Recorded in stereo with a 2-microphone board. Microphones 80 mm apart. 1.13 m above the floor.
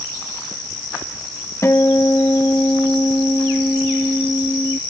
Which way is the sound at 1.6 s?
35° left (ahead or behind).